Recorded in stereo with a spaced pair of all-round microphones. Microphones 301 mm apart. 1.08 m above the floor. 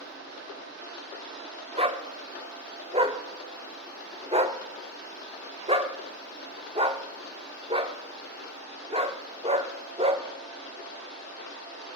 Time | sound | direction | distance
1.8 | a dog barking | 20° right (ahead or behind) | 0.6 m